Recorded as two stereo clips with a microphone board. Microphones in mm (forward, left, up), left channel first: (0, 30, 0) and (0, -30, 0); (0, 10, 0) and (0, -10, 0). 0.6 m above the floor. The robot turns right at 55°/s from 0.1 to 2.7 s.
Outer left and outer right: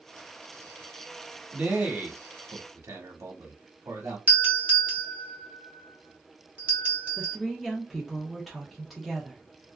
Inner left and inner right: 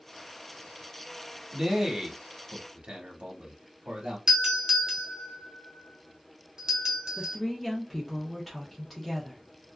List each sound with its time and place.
1.5 s a man speaking: 20° right (ahead or behind), 1.1 m; by 4.2 s 55° right (ahead or behind), 1.1 m
4.3 s a doorbell: 25° right (ahead or behind), 1.2 m
7.2 s a woman speaking: centre (ahead or behind), 0.7 m